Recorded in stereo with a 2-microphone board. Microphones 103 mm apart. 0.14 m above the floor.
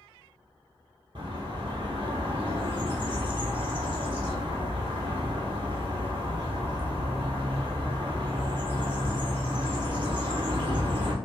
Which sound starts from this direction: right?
A bird, at 1.1 s.